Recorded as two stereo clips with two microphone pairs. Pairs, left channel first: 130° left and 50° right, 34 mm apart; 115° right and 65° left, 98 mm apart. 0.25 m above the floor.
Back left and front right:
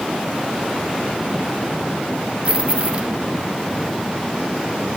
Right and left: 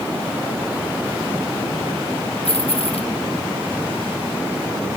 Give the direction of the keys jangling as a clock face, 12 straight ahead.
4 o'clock.